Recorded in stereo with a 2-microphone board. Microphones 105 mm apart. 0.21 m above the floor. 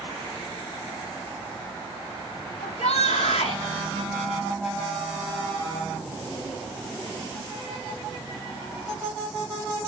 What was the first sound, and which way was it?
A shout, 75° left (ahead or behind).